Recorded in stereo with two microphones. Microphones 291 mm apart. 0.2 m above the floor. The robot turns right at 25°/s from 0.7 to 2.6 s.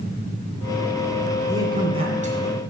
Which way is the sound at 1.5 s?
10° right (ahead or behind).